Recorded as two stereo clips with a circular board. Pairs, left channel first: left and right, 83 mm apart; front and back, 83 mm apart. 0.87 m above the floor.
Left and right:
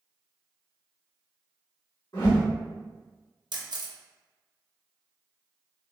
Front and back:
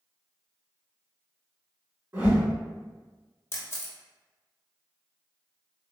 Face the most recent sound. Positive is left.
turn(degrees=-60)